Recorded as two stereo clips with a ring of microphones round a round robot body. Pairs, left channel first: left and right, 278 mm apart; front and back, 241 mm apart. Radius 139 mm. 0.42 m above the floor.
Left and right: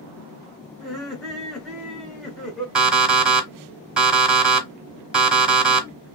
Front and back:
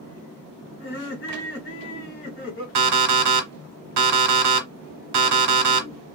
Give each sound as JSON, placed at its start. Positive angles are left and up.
{"t": 0.8, "sound": "laughter", "azimuth_deg": 0, "distance_m": 1.2}
{"t": 2.8, "sound": "an alarm clock", "azimuth_deg": -175, "distance_m": 1.0}